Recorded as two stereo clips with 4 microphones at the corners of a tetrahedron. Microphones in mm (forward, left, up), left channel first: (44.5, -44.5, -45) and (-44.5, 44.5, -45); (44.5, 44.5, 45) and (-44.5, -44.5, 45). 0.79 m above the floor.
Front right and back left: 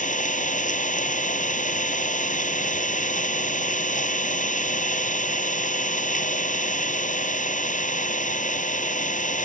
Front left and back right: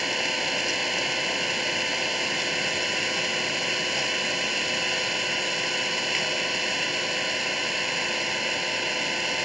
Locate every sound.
0.0 s an engine running: 45° right